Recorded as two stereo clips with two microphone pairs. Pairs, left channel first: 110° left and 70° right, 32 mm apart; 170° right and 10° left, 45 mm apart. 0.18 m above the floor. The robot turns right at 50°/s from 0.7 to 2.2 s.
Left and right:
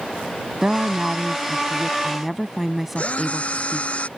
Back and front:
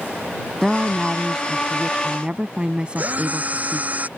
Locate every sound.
0.6 s a woman speaking: 70° right; by 3.9 s 5° left
3.0 s a drill: 60° left